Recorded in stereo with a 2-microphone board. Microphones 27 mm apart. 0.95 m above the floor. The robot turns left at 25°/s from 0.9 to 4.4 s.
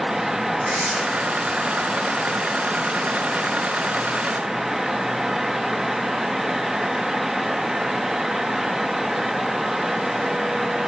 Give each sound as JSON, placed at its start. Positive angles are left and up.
{"t": 0.6, "sound": "tearing paper", "side_deg": -60, "distance_m": 4.5}